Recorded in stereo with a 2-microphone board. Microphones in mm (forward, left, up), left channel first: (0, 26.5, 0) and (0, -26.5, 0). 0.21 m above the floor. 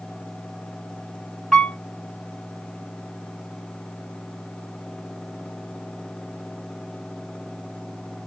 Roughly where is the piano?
Centre.